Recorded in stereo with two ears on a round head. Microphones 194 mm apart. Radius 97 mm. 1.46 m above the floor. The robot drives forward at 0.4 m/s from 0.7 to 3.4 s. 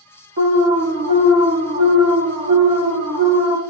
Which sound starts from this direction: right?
An alarm, at 0.4 s.